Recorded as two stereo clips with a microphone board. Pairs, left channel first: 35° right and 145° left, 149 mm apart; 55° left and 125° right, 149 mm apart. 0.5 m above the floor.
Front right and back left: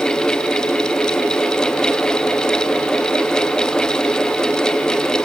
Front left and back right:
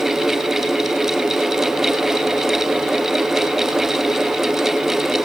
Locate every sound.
Only background noise.